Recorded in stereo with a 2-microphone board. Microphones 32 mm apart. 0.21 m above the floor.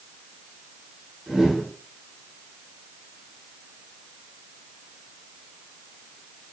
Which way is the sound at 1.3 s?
5° right (ahead or behind).